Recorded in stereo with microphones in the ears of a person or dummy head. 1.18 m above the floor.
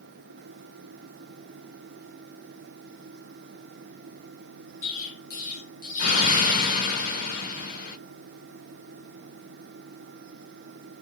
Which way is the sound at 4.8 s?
50° left (ahead or behind).